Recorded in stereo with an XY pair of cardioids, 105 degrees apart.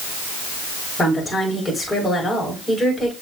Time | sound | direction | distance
1.0 | a woman speaking | 15° left | 5 m